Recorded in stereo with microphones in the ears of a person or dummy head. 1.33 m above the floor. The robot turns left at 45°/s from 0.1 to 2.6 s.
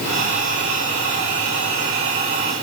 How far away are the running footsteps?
No running footsteps in this recording.